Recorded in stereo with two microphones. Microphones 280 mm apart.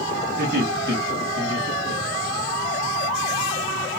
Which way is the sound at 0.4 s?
35° right (ahead or behind).